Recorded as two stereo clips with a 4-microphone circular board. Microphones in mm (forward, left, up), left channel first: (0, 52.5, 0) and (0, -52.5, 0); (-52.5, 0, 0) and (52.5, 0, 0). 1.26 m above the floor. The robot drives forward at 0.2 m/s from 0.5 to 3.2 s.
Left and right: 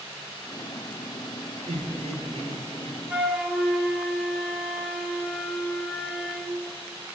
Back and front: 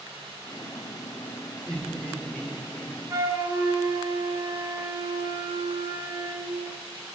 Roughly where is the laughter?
Right.